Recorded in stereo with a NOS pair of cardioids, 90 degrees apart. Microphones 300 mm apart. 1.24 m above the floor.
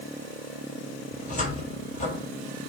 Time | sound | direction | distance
1.1 | a cupboard door | 25° left | 4.5 m